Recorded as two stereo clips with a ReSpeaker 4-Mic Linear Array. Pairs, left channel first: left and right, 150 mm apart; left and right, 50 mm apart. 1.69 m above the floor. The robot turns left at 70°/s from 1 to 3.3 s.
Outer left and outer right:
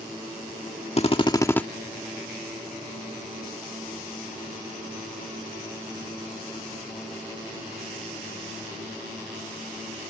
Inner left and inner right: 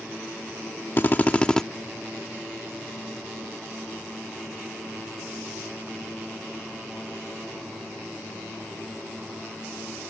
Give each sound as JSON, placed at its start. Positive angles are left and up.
{"t": 1.0, "sound": "a drill", "azimuth_deg": 55}